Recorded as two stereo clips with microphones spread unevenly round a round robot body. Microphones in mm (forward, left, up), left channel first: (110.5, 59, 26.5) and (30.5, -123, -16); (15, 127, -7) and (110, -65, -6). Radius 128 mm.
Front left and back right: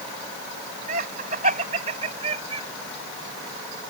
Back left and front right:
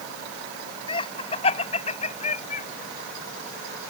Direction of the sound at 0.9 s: 175° right.